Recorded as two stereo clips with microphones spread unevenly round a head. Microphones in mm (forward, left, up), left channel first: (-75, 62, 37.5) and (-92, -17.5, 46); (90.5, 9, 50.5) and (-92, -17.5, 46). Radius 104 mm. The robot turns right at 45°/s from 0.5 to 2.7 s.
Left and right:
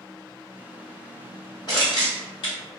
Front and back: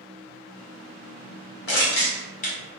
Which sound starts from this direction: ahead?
Crushing, at 1.7 s.